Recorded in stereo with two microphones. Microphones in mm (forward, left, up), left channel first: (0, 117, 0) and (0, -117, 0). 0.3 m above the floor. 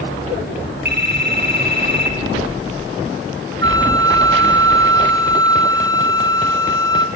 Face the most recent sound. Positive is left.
turn(degrees=-55)  # may be behind; listen again after turning